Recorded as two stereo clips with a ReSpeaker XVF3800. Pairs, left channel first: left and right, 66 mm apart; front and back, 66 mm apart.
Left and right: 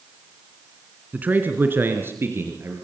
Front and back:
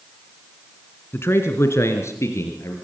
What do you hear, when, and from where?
1.1 s a man speaking: 35° right, 2 m; by 2.7 s 40° right, 4 m